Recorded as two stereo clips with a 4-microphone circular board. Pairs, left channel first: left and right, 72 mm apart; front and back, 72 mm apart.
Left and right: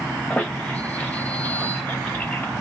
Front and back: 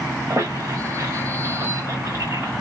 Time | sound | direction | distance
0.3 | a squeak | 155° left | 1.3 m